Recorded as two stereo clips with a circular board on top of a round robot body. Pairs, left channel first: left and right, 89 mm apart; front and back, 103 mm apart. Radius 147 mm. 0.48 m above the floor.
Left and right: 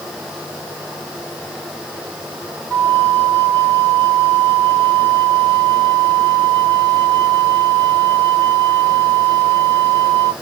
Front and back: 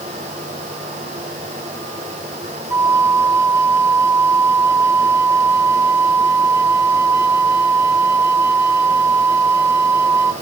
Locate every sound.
2.7 s a flute: 135° left, 1.4 m